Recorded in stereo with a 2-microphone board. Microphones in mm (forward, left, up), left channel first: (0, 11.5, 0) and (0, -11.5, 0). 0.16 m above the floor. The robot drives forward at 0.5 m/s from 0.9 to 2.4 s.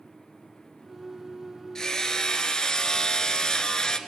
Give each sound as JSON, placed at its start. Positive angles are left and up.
{"t": 1.8, "sound": "hammering", "side_deg": 25, "distance_m": 1.6}